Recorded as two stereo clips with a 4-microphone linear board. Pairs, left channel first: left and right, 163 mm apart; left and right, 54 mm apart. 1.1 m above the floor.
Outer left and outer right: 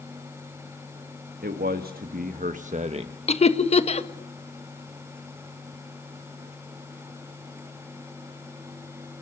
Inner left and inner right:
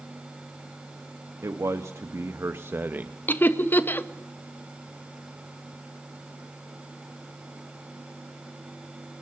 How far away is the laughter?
About 1.6 m.